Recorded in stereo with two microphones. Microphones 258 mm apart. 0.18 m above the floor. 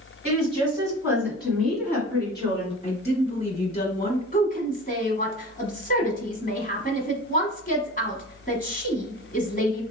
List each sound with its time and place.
0.2 s a woman speaking: 25° right (ahead or behind), 1.8 m; by 2.7 s 20° left (ahead or behind), 1.6 m
2.8 s a woman speaking: 30° left (ahead or behind), 1.2 m
4.3 s a woman speaking: 30° left (ahead or behind), 1.2 m